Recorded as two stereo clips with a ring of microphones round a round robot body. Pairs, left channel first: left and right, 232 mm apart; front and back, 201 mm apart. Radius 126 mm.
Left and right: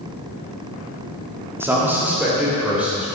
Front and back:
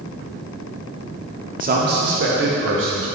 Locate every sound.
1.6 s a man speaking: 165° right, 1.6 m; by 3.1 s 175° right, 3.5 m